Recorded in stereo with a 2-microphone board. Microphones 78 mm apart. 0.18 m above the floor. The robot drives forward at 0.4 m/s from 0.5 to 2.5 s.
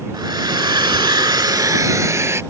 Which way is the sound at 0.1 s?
65° right (ahead or behind).